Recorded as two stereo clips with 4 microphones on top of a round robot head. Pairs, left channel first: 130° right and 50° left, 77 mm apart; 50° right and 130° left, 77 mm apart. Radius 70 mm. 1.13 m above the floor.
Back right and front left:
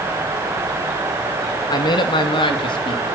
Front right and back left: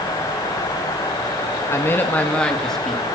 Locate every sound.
1.7 s a man speaking: 105° right, 2 m; by 3.2 s 140° right, 3 m